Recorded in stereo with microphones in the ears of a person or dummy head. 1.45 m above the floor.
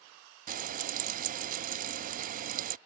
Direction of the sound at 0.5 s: 35° right (ahead or behind).